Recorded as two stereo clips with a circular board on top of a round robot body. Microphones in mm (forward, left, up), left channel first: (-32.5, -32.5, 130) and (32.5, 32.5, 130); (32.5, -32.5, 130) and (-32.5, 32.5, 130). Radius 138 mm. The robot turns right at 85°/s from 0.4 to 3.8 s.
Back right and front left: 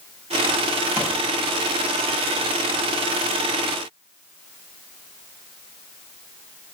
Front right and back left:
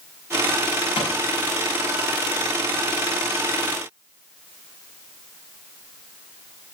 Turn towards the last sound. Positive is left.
turn(degrees=-135)